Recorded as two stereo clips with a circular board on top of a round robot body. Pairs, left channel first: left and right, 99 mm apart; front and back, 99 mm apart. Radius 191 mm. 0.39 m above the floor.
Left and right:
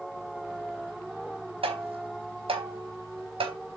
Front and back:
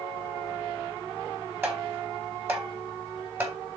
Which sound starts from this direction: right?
Tapping, at 1.6 s.